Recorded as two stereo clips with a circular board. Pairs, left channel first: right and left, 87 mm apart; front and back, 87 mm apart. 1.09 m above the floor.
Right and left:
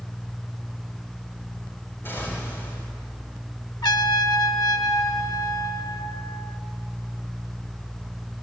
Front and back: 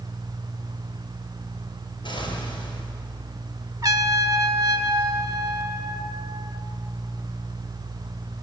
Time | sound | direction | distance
2.0 | an explosion | 25° right | 4.5 m
3.8 | a trumpet | 130° right | 1.1 m